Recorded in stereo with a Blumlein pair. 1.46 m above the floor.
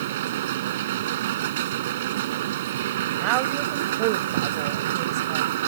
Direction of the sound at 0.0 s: 55° right.